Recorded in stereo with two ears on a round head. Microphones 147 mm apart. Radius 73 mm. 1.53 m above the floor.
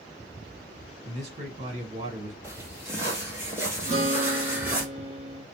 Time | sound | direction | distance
1.1 | a man speaking | 40° right (ahead or behind) | 1.3 m
2.4 | footsteps | 15° right (ahead or behind) | 2 m
3.9 | a guitar | 45° right (ahead or behind) | 1.1 m